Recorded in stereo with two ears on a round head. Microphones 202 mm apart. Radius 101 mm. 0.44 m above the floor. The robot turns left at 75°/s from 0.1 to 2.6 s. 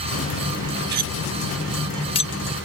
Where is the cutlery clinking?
45° right (ahead or behind); by 2.3 s 35° left (ahead or behind).